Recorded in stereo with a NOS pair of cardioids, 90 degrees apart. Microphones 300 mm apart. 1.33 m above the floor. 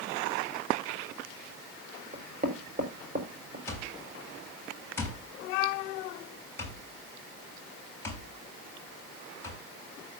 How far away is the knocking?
About 4.5 m.